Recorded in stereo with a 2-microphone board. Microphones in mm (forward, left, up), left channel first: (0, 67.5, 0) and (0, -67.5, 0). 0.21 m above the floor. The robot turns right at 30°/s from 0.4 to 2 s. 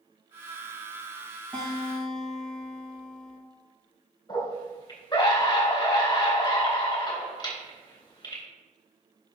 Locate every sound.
1.5 s a guitar: 15° left (ahead or behind), 3.5 m; by 3.4 s centre (ahead or behind), 3.5 m
4.3 s a scream: 30° left (ahead or behind), 3 m